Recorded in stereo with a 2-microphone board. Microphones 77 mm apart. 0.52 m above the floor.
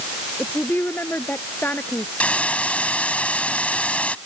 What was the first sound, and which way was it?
A woman speaking, 25° left (ahead or behind).